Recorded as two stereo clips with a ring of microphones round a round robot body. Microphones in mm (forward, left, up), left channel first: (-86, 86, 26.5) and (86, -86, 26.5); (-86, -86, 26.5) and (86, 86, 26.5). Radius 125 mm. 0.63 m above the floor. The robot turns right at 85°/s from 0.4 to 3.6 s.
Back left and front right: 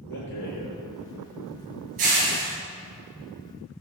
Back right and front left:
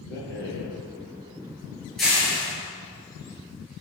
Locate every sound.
0.1 s a rattle: straight behind, 7.5 m; by 2.5 s straight ahead, 7.5 m